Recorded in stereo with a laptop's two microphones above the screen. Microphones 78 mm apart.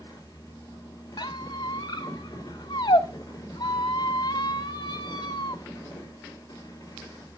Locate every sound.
0.0 s a fan: 45° left (ahead or behind), 2.5 m
1.2 s a squeak: 75° left (ahead or behind), 0.8 m